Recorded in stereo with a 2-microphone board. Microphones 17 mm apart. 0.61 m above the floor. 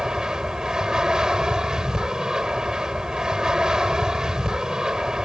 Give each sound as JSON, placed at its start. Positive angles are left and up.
{"t": 0.0, "sound": "an aircraft", "side_deg": -45}